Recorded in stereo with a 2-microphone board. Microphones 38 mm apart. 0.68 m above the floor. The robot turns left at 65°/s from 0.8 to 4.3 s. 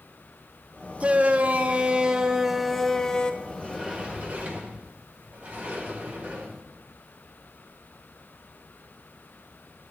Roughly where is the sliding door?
Ahead.